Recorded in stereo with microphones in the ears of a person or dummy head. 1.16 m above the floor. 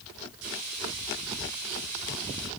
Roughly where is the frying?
Right.